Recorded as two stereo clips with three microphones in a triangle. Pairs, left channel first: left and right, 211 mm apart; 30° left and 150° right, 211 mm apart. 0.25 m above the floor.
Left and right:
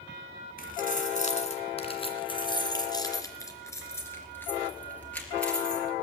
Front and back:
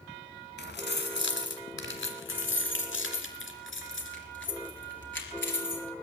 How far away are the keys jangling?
About 1.8 m.